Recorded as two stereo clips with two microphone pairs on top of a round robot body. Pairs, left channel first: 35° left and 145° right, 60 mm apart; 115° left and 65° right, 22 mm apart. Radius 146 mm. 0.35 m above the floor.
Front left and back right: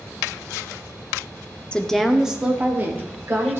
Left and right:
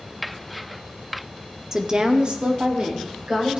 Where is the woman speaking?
25° right, 1.1 m; by 3.6 s 100° right, 2.5 m.